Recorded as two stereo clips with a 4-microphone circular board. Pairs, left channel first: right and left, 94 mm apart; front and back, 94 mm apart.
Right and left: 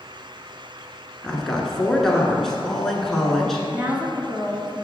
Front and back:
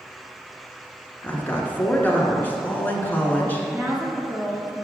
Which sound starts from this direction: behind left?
A woman speaking, at 3.7 s.